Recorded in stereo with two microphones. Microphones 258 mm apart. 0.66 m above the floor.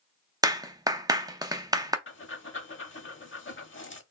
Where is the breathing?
50° left (ahead or behind), 0.7 m.